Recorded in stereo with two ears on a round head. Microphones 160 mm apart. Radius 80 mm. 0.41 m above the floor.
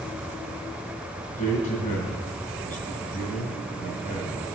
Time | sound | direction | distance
1.2 | a man speaking | 45° left (ahead or behind) | 6.5 m